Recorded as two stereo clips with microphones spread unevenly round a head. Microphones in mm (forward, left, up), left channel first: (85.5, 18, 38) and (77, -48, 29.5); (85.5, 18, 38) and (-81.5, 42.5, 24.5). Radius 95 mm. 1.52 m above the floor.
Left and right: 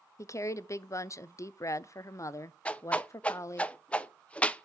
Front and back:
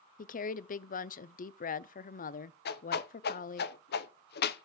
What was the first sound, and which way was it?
A woman speaking, 35° left.